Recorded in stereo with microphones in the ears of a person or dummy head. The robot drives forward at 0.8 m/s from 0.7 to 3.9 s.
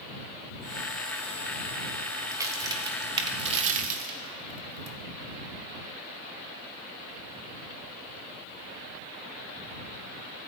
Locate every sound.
2.3 s a crack: 20° right (ahead or behind), 2 m; by 5.0 s 45° right (ahead or behind), 1.1 m